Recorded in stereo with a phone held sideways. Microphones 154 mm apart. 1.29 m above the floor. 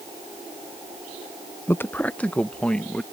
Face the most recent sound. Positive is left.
turn(degrees=5)  # may be behind; listen again after turning